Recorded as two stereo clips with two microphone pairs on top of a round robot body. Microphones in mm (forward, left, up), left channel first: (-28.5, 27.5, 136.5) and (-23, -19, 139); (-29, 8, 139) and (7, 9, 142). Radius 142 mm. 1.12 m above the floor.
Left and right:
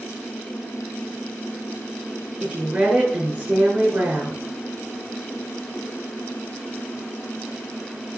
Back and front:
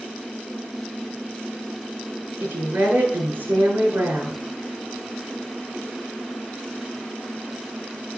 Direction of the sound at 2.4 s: 20° right.